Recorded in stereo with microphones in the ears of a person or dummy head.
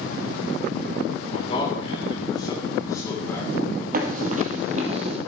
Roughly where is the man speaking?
Left.